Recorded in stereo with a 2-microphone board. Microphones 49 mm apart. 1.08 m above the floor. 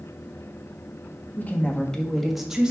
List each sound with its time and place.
1.4 s a woman speaking: 35° left (ahead or behind), 1.6 m; by 2.7 s 20° right (ahead or behind), 1.7 m